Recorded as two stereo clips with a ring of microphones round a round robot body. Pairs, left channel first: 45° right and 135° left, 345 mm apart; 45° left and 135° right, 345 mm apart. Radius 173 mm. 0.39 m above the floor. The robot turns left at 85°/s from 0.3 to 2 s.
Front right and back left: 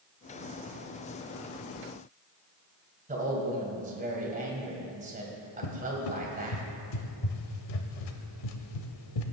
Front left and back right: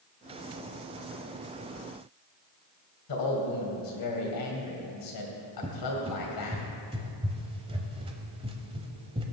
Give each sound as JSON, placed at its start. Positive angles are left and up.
{"t": 3.1, "sound": "a man speaking", "azimuth_deg": 70, "distance_m": 2.5}
{"t": 5.6, "sound": "a cupboard door", "azimuth_deg": -60, "distance_m": 0.9}